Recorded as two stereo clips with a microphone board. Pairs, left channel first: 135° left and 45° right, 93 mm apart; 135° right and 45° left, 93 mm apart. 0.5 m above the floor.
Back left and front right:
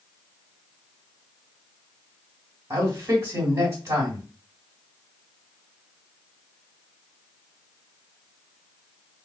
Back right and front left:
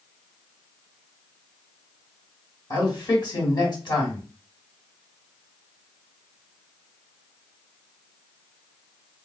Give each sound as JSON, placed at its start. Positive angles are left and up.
{"t": 2.7, "sound": "a man speaking", "azimuth_deg": -100, "distance_m": 2.0}